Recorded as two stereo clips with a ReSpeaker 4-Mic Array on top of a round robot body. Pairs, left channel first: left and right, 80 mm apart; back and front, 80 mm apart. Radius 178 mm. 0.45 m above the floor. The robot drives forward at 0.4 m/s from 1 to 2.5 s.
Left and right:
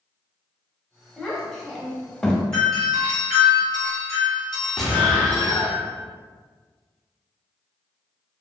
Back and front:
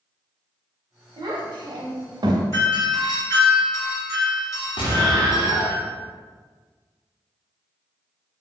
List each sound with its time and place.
1.2 s a child speaking: 5° left, 1.0 m; by 2.4 s 15° left, 0.6 m
2.5 s a doorbell: 165° left, 1.8 m
4.8 s an explosion: straight behind, 0.8 m